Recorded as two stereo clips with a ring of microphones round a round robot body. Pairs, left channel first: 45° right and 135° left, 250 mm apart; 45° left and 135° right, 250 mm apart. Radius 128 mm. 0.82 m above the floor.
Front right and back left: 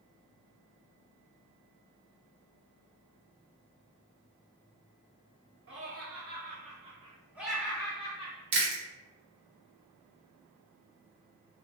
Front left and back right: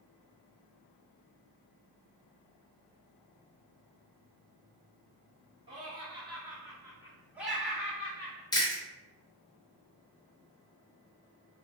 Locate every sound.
5.7 s laughter: 160° left, 1.4 m; by 8.4 s 30° right, 1.0 m
8.5 s chewing: 115° left, 0.8 m